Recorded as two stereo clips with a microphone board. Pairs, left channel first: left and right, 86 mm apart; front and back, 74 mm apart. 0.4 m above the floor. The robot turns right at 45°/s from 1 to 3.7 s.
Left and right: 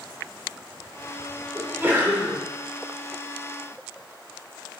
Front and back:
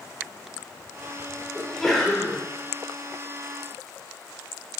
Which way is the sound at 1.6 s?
95° right.